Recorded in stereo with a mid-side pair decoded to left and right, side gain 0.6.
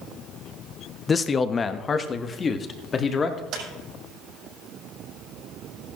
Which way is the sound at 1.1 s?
30° left.